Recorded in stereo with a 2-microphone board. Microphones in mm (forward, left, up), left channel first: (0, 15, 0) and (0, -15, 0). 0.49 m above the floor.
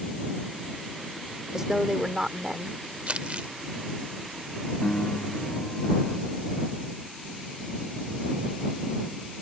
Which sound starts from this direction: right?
Crumpling, at 3.1 s.